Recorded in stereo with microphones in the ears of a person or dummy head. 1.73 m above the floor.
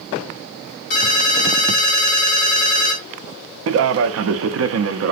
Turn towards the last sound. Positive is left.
turn(degrees=-75)  # may be behind; listen again after turning